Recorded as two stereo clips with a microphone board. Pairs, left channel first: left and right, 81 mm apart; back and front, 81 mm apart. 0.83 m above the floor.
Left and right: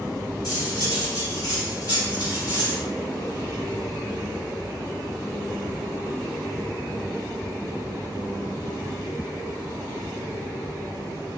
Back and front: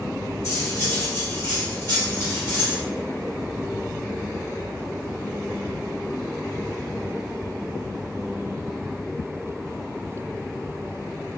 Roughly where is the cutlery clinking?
Behind left.